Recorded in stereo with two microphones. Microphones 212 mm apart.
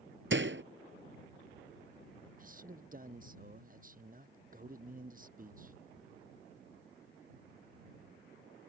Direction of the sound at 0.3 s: 65° right (ahead or behind).